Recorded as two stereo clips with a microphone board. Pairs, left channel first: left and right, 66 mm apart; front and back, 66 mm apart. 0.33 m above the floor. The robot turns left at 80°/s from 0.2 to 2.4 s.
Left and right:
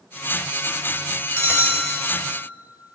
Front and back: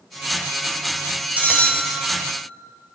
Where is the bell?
120° right, 0.9 m; by 2.2 s 165° left, 0.9 m.